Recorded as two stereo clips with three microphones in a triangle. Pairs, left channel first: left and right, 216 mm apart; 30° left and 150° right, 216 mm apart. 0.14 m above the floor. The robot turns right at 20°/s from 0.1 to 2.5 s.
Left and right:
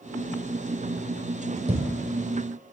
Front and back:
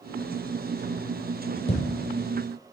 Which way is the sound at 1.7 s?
30° right.